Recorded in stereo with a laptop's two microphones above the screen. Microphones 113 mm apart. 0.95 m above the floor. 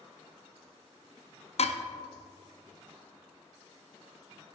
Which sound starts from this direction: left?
Dishes clattering, at 1.6 s.